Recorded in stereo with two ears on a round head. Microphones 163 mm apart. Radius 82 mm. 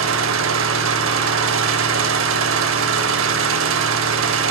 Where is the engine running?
75° right (ahead or behind), 0.7 m.